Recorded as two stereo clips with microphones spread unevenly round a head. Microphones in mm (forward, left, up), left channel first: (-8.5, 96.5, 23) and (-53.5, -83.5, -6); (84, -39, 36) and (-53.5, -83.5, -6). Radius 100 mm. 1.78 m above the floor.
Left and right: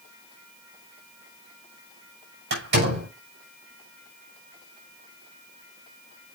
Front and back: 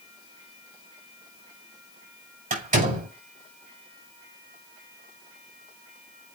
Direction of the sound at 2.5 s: 135° right.